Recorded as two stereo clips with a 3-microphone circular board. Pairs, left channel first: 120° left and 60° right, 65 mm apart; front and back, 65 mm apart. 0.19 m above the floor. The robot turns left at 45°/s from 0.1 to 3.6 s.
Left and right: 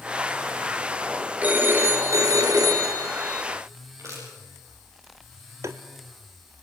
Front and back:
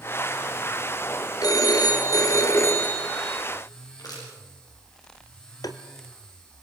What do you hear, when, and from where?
1.4 s a phone ringing: 5° left, 2.5 m; by 3.4 s 85° right, 2.5 m
4.0 s crushing: 20° right, 8.5 m
5.6 s tapping: 20° right, 1.0 m